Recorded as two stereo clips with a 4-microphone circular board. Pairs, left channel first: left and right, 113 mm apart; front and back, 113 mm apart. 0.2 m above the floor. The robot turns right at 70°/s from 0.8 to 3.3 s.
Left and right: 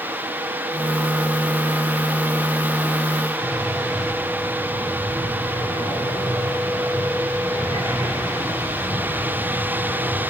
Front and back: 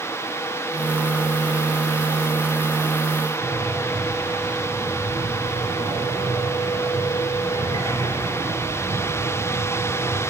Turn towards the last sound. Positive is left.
turn(degrees=145)